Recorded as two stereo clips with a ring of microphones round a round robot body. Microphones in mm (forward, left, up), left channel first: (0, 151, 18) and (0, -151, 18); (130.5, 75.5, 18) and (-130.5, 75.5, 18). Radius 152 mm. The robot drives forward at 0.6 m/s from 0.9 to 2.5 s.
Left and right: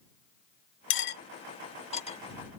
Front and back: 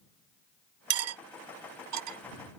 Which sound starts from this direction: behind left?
Cutlery clinking, at 0.9 s.